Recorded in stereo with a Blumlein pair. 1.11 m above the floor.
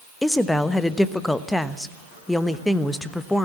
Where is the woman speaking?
5° left, 1.1 m.